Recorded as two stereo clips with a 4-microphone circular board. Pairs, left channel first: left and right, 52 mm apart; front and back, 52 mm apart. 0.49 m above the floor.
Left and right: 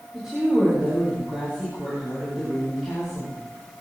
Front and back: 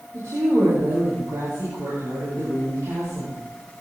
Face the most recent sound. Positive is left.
turn(degrees=-175)